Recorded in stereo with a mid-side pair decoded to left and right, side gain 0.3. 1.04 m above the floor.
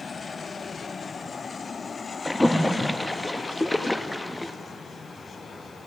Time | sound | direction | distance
2.2 | a splash | 15° left | 0.7 m